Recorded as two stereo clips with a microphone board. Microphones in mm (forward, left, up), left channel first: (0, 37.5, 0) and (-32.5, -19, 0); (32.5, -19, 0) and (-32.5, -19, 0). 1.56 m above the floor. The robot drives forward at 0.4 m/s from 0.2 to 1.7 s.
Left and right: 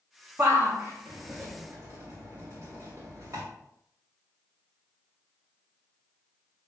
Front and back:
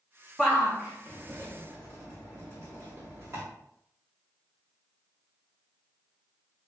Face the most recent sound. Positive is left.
turn(degrees=-145)